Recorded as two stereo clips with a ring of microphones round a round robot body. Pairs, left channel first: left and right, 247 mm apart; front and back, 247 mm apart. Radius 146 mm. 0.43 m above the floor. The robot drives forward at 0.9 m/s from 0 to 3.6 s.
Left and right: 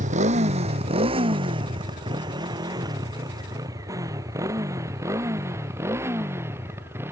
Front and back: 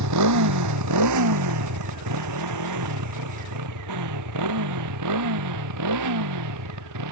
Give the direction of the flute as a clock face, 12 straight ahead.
No flute in this recording.